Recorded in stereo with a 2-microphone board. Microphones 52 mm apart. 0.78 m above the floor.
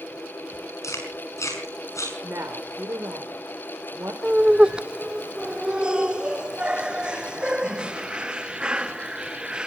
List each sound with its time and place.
0.8 s chewing: 80° left, 5.5 m
2.2 s a woman speaking: 70° right (ahead or behind), 2.5 m
4.2 s laughter: 15° right (ahead or behind), 0.9 m